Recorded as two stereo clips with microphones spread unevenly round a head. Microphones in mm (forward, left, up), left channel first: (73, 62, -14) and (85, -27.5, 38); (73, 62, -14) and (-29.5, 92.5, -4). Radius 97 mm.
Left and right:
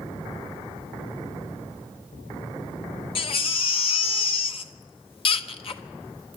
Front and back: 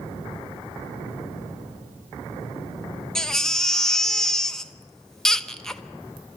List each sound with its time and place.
3.1 s a baby crying: 75° left, 1.0 m